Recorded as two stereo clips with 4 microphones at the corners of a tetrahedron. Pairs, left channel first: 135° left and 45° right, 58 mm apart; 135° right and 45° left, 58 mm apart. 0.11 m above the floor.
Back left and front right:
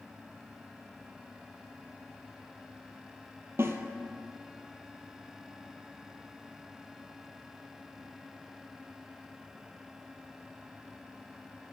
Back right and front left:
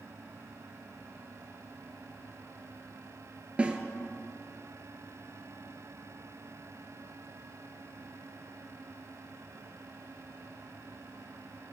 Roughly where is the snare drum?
Ahead.